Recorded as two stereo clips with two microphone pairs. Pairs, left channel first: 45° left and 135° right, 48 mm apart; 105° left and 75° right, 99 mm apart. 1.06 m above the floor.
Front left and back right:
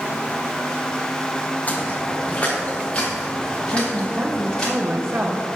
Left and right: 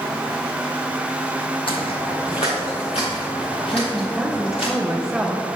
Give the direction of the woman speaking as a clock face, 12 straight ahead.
5 o'clock.